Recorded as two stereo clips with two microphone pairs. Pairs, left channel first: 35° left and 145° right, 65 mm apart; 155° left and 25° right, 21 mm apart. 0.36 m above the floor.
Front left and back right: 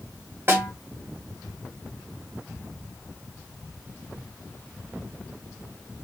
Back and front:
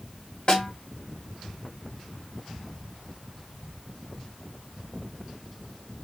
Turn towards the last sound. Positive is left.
turn(degrees=180)